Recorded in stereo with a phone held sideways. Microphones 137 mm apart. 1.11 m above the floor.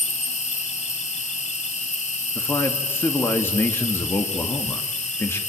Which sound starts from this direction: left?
An insect, at 0.0 s.